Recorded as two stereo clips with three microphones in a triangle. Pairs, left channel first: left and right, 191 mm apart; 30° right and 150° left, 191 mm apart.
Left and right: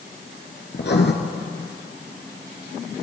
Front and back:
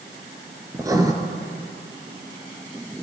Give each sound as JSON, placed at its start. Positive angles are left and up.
{"t": 0.7, "sound": "writing", "azimuth_deg": 80, "distance_m": 2.0}